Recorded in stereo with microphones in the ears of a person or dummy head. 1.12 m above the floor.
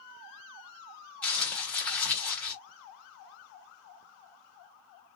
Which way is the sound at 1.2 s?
10° left (ahead or behind).